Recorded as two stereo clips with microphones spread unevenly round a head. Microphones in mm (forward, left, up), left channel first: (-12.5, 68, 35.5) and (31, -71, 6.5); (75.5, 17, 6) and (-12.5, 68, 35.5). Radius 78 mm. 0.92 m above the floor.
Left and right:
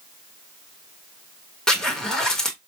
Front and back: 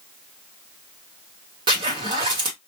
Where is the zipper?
155° right, 1.1 m.